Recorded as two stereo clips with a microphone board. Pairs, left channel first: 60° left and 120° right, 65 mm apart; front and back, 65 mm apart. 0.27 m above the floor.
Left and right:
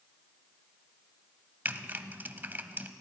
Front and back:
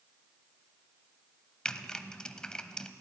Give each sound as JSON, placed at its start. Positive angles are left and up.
{"t": 1.6, "sound": "typing on a keyboard", "azimuth_deg": -75, "distance_m": 0.6}